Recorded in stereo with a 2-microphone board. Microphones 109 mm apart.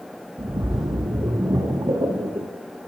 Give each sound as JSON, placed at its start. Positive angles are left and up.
{"t": 0.4, "sound": "a splash", "side_deg": -45, "distance_m": 0.5}